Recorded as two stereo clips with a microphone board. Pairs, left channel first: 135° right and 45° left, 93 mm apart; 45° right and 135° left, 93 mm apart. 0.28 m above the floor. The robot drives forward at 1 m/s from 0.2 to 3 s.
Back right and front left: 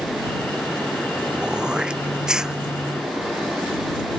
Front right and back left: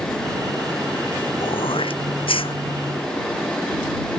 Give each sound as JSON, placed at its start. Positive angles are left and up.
{"t": 1.4, "sound": "throat clearing", "azimuth_deg": -35}